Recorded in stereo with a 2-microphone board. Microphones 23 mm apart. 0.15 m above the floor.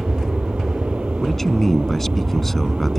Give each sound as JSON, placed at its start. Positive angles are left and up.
{"t": 0.0, "sound": "an aircraft", "side_deg": -70}
{"t": 1.2, "sound": "a man speaking", "side_deg": 15}